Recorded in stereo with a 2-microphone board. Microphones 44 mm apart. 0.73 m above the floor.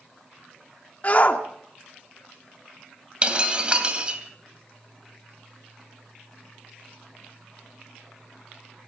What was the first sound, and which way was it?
A shout, 35° left (ahead or behind).